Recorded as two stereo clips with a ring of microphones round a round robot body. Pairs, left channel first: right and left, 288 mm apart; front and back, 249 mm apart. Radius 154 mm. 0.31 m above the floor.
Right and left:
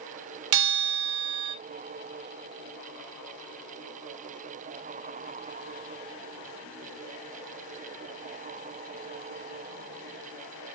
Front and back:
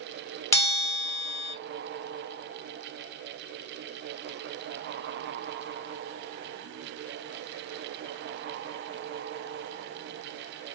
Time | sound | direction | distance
0.5 | a bell | 80° left | 0.8 m